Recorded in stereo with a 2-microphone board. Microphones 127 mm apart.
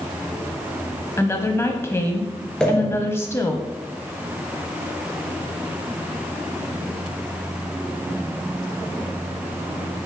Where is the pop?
5° left (ahead or behind), 3 m.